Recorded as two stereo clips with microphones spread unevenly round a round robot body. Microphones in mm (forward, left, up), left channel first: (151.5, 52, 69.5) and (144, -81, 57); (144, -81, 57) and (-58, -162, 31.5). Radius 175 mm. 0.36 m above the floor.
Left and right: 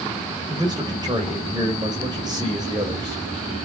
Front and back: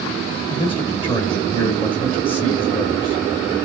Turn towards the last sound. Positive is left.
turn(degrees=-45)